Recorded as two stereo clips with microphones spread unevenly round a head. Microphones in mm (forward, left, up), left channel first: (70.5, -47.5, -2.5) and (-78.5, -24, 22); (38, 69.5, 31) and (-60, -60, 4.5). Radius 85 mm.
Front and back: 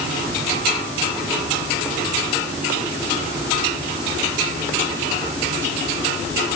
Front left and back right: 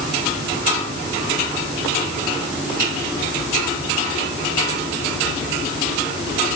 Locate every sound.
Only background noise.